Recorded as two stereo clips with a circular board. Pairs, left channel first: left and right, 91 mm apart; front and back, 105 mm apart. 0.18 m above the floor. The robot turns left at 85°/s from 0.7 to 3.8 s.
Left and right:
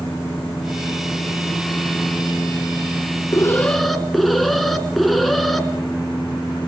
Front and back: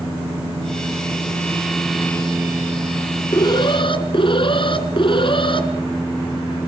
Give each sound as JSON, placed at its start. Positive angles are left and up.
{"t": 3.3, "sound": "an alarm", "azimuth_deg": 40, "distance_m": 1.9}